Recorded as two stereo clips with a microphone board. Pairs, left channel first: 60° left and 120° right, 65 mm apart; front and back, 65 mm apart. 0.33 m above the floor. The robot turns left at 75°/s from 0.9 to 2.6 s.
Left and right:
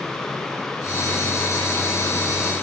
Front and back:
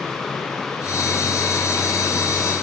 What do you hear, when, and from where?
Only background noise.